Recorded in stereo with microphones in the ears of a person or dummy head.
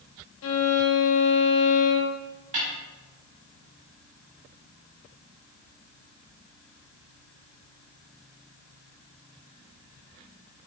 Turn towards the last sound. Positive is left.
turn(degrees=-40)  # may be behind; listen again after turning